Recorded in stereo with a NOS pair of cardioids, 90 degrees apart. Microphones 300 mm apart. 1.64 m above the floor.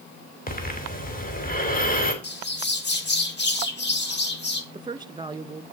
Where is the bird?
35° left, 2.5 m.